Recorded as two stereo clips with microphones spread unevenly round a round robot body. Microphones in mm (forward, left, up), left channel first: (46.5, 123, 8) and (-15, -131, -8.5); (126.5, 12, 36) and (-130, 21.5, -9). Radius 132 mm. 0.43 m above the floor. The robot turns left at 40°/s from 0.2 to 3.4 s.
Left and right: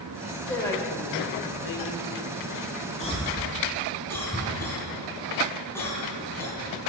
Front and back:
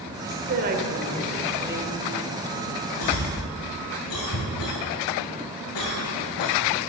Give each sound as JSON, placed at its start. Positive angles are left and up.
{"t": 0.2, "sound": "a woman speaking", "azimuth_deg": 170, "distance_m": 1.5}
{"t": 3.0, "sound": "a cough", "azimuth_deg": 10, "distance_m": 4.0}